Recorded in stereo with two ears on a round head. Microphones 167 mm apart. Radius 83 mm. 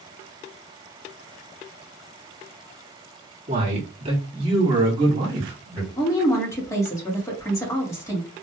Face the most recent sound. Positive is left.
turn(degrees=15)  # may be behind; listen again after turning